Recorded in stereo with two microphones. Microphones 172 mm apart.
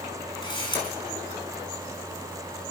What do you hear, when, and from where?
0.4 s a camera shutter: 25° left (ahead or behind), 5 m